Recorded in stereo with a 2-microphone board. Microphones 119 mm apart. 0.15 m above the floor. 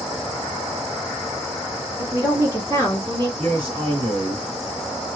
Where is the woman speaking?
15° right (ahead or behind), 1.3 m; by 3.3 s 40° right (ahead or behind), 1.7 m.